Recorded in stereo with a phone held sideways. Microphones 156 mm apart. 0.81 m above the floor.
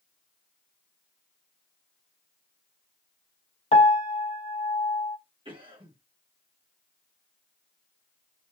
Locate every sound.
3.7 s a piano: 45° left (ahead or behind), 0.6 m
5.5 s a cough: 35° right (ahead or behind), 1.5 m